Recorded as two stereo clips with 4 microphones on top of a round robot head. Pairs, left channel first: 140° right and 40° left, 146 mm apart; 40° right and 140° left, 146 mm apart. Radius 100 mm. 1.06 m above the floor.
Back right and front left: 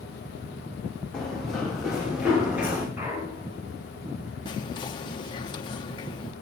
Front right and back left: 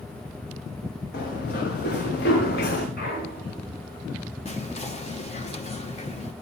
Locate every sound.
1.1 s running footsteps: 50° right, 9.5 m; by 2.9 s 35° right, 10 m
3.0 s a clunk: 30° right, 10 m
4.5 s whispering: 80° right, 1.0 m